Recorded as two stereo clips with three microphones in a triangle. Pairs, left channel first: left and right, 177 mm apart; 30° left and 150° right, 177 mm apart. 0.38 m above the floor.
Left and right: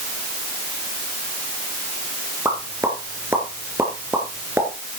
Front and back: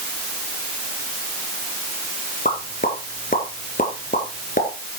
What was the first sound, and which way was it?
A pop, 15° right.